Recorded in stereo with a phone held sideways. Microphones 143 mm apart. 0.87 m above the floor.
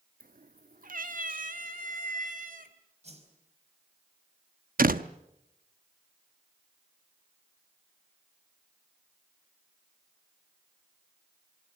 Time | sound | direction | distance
0.2 | a cat meowing | 80° right | 0.7 m
3.0 | a whoosh | 50° right (ahead or behind) | 4.5 m
4.8 | a door slam | 90° right | 0.8 m